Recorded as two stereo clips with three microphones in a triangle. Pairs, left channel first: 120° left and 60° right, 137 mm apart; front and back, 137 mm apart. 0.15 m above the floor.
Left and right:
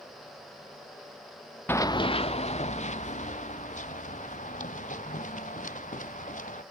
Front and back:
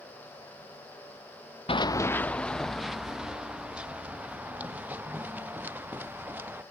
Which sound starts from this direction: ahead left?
Running footsteps, at 1.7 s.